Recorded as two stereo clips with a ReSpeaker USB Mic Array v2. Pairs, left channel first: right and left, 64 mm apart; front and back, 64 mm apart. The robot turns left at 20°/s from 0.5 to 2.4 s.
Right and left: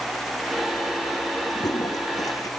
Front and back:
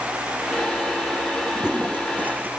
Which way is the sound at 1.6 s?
100° right.